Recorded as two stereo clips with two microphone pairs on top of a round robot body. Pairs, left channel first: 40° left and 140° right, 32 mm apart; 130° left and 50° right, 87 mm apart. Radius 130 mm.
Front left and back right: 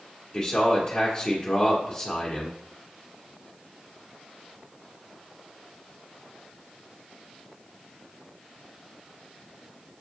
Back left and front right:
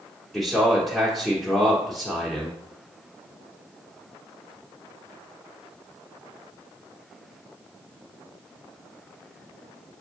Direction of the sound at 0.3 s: 35° left.